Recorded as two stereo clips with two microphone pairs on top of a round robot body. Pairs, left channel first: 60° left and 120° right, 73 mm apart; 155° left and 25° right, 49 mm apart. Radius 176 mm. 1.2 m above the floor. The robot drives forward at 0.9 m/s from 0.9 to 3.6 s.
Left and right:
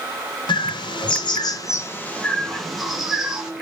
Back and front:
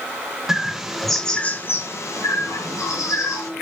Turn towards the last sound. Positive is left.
turn(degrees=160)